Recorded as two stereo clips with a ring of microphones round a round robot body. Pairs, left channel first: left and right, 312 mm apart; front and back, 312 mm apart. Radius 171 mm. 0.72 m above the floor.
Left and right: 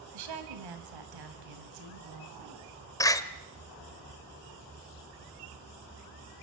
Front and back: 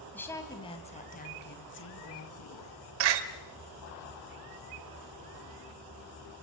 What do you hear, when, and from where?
0.1 s a woman speaking: 85° right, 4 m; by 2.7 s 40° right, 5 m
3.0 s a door slam: 170° left, 1.7 m